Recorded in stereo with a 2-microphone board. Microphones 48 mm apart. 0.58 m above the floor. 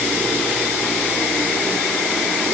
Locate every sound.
Only background noise.